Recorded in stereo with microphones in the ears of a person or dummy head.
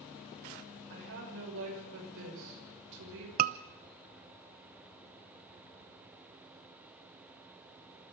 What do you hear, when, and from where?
0.9 s a woman speaking: 70° right (ahead or behind), 6 m
3.4 s a scream: 40° right (ahead or behind), 0.7 m